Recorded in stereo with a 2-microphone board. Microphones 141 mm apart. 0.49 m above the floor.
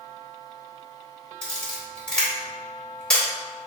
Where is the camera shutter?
5° left (ahead or behind), 1.8 m.